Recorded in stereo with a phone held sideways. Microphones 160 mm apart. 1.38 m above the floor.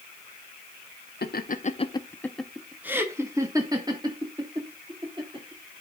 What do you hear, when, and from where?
1.2 s laughter: 75° left (ahead or behind), 0.8 m; by 5.8 s 30° right (ahead or behind), 4 m